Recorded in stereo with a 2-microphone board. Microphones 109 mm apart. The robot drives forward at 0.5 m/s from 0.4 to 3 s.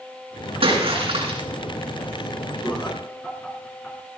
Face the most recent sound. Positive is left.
turn(degrees=20)  # may be behind; listen again after turning